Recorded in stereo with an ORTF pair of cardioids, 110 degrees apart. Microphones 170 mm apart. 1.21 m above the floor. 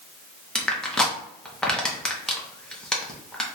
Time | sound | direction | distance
0.6 | crushing | 5° left | 0.8 m